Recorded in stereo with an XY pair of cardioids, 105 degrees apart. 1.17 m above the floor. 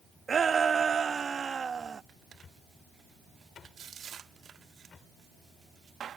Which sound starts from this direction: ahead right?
A shout, at 0.3 s.